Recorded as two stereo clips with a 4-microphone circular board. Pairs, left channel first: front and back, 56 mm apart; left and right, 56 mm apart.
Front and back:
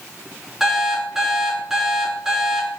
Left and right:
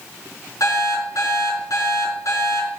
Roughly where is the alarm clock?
Left.